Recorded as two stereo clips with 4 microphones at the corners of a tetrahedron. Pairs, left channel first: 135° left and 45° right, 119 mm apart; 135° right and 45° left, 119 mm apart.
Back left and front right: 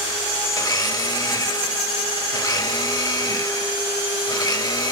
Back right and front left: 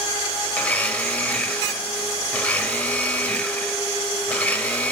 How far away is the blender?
About 0.7 m.